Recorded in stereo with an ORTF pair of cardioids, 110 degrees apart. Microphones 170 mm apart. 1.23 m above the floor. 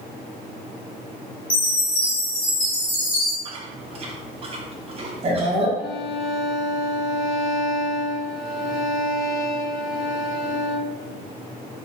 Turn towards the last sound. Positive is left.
turn(degrees=0)